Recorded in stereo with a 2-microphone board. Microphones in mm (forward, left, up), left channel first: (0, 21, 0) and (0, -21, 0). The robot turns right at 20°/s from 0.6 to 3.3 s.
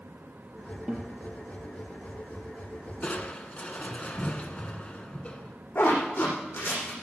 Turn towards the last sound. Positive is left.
turn(degrees=75)  # may be behind; listen again after turning